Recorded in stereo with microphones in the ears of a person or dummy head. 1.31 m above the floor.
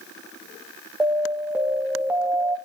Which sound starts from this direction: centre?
An alarm, at 1.0 s.